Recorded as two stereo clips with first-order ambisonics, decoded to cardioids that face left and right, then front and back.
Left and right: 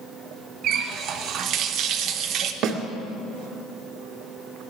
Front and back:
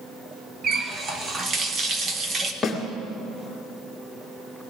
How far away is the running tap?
About 1.0 m.